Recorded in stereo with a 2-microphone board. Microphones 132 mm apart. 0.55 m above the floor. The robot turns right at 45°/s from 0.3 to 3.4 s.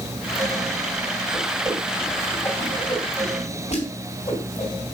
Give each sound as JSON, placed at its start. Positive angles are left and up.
{"t": 1.3, "sound": "a whoosh", "side_deg": -30, "distance_m": 3.0}